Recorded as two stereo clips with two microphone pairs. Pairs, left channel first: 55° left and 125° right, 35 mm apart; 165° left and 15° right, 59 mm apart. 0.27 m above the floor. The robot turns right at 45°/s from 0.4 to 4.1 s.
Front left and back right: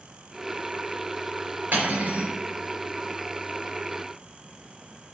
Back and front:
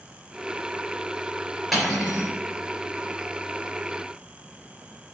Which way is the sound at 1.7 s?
100° right.